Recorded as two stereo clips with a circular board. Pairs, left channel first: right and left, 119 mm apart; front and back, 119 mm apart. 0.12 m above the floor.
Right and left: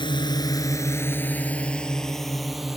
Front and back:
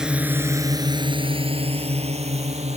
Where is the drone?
100° right; by 2.8 s 175° left.